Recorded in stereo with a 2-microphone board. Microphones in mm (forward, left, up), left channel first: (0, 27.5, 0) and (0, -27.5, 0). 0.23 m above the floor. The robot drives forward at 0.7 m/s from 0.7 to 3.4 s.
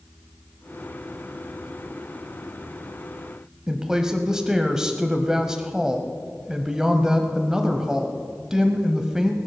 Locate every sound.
3.7 s a woman speaking: 10° right (ahead or behind), 0.9 m